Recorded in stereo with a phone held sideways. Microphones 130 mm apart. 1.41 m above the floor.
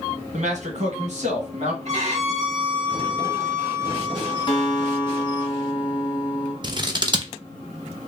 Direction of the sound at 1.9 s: 60° right (ahead or behind).